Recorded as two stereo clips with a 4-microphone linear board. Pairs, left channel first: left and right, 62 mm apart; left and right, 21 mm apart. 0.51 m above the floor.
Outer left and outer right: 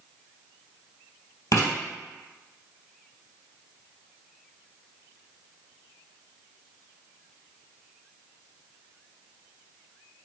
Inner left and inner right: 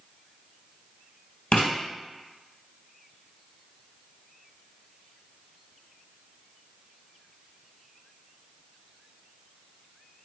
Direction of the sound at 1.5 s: 60° left (ahead or behind).